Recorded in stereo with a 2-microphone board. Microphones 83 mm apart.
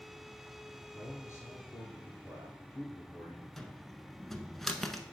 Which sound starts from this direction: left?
A man speaking, at 0.9 s.